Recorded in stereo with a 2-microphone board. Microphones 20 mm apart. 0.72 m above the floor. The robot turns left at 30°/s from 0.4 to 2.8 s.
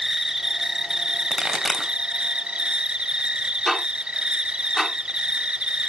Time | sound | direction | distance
0.0 | an insect | 25° right | 0.7 m
1.3 | a pop | 25° right (ahead or behind) | 2 m
3.7 | ticking | centre (ahead or behind) | 2.5 m